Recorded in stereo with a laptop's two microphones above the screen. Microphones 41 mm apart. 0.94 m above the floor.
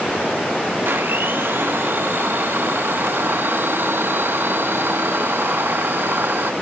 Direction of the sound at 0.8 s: 60° right (ahead or behind).